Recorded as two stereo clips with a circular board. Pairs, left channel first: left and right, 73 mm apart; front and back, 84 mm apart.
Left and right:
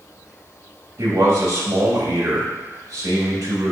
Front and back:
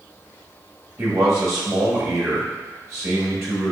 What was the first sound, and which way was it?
A man speaking, 125° right.